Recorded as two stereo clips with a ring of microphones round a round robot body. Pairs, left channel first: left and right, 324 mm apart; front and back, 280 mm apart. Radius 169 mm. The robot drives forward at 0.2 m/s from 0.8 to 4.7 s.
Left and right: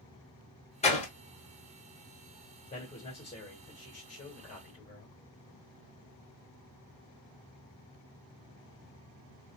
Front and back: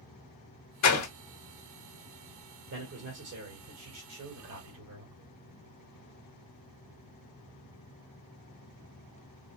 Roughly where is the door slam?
Ahead.